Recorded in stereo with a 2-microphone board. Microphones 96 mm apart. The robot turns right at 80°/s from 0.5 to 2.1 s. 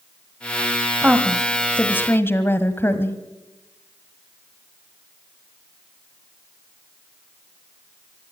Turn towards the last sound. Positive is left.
turn(degrees=25)  # may be behind; listen again after turning